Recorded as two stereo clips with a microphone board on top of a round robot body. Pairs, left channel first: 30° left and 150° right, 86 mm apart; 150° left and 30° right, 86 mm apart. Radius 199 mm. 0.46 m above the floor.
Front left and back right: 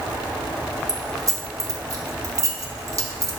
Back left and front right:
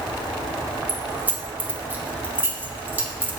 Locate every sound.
0.9 s keys jangling: 100° right, 1.6 m